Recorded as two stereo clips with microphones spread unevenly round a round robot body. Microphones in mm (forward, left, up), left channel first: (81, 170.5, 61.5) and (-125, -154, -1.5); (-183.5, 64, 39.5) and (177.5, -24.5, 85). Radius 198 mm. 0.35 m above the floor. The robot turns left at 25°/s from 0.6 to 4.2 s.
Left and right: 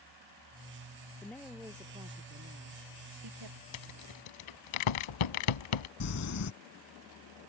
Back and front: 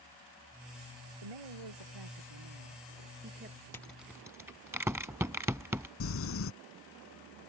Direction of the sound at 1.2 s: 25° right.